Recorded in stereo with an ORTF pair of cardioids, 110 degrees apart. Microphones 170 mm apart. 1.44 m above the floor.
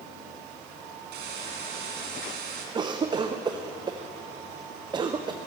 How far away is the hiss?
About 2.5 m.